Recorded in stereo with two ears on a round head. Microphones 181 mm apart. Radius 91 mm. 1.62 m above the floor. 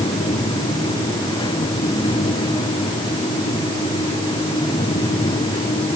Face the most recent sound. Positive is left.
No sound to turn to.